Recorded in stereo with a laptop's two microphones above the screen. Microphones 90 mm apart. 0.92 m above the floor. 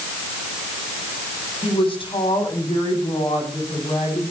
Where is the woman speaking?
85° left, 7.5 m; by 4.2 s 70° left (ahead or behind), 8.5 m.